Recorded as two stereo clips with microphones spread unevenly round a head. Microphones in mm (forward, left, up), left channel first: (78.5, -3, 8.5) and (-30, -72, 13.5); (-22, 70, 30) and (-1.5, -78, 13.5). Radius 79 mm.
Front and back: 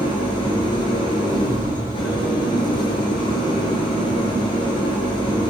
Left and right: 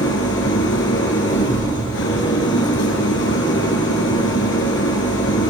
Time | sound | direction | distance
0.0 | an engine running | 100° left | 5.5 m